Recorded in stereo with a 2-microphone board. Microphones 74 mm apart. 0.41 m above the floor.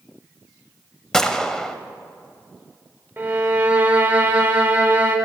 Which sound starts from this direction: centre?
A gunshot, at 1.1 s.